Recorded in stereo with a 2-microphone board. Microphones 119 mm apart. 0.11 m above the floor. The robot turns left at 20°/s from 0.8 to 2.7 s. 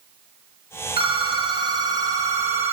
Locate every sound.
1.0 s a phone ringing: 125° right, 2.5 m; by 2.7 s 160° right, 2.5 m